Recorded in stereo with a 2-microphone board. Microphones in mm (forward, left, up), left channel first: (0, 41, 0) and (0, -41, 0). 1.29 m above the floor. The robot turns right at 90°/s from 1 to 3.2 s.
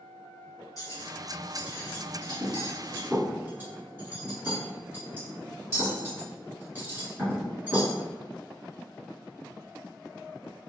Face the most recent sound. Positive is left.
turn(degrees=-25)  # may be behind; listen again after turning